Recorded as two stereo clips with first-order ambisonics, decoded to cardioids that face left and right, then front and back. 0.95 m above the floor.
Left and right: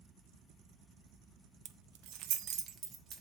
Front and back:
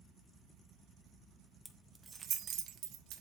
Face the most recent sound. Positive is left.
turn(degrees=-150)